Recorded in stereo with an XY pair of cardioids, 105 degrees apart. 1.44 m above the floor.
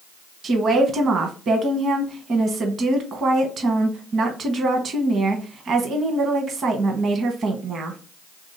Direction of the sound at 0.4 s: 50° right.